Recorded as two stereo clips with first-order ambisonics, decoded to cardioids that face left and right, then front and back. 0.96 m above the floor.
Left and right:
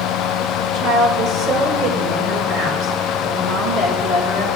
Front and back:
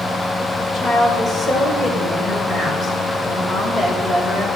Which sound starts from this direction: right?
A woman speaking, at 0.7 s.